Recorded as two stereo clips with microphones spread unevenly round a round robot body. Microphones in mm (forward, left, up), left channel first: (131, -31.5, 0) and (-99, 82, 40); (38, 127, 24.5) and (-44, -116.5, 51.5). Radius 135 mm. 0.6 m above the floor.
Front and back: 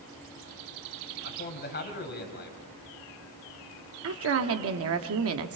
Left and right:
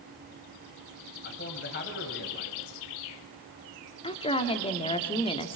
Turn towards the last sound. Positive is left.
turn(degrees=130)